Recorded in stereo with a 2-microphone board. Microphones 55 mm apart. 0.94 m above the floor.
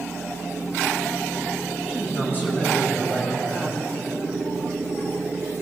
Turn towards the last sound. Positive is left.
turn(degrees=45)  # may be behind; listen again after turning